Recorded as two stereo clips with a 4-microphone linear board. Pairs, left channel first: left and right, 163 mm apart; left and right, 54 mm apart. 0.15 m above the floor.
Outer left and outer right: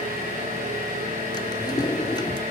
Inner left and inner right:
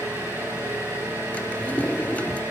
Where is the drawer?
30° left (ahead or behind), 0.6 m.